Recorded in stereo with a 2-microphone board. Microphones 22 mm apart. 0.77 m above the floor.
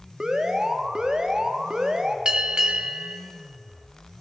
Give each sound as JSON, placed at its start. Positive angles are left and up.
{"t": 0.2, "sound": "an alarm", "side_deg": -35, "distance_m": 1.0}
{"t": 2.2, "sound": "a bell", "side_deg": -40, "distance_m": 1.6}